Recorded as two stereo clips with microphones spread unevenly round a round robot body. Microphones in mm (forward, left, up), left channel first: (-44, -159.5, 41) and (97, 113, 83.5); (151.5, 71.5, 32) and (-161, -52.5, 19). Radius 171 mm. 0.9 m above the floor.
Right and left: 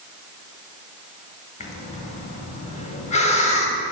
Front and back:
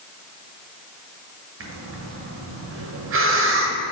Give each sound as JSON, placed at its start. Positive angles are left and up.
{"t": 1.6, "sound": "breathing", "azimuth_deg": -160, "distance_m": 1.0}